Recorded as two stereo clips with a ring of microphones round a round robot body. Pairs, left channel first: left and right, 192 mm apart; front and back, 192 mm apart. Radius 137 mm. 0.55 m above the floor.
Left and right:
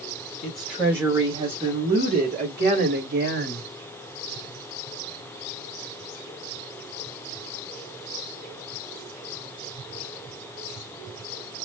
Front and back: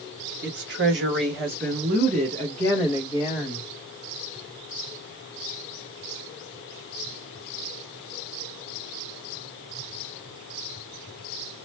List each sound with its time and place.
0.4 s a woman speaking: 175° left, 1.2 m; by 3.7 s 90° right, 1.3 m